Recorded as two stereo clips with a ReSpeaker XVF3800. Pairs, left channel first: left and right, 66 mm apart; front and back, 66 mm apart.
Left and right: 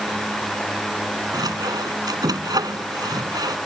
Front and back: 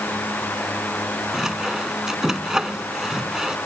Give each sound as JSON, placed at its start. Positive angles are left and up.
{"t": 1.3, "sound": "sawing", "azimuth_deg": -100}